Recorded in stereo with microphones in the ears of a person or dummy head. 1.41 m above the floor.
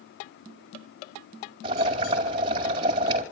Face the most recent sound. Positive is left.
turn(degrees=-30)  # may be behind; listen again after turning